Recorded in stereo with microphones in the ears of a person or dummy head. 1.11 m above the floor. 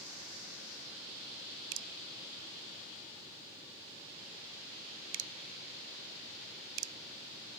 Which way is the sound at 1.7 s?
80° right.